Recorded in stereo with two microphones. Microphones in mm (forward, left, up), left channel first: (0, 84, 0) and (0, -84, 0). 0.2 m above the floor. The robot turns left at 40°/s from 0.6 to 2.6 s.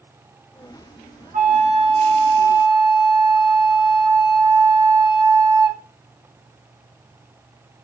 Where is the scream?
No scream in this recording.